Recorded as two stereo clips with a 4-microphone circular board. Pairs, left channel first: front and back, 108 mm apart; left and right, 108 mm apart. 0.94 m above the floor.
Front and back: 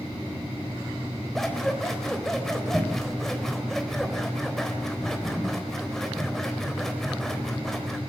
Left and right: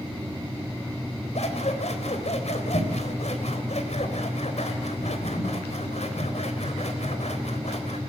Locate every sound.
1.4 s scissors: 85° left, 3.5 m